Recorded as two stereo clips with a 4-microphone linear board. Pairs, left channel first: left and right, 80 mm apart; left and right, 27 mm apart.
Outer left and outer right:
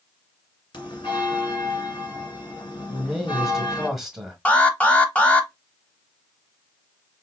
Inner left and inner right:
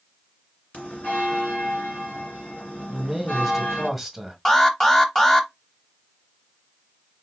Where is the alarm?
15° left (ahead or behind), 0.7 m.